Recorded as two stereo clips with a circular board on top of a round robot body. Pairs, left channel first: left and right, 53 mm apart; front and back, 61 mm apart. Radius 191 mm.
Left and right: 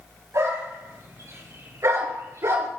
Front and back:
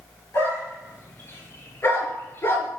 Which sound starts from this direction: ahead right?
A dog barking, at 0.3 s.